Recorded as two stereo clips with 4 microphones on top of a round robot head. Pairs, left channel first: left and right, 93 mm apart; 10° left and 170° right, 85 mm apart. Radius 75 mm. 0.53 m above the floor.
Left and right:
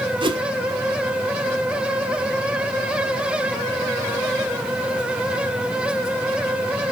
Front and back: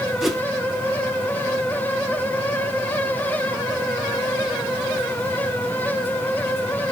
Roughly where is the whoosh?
Right.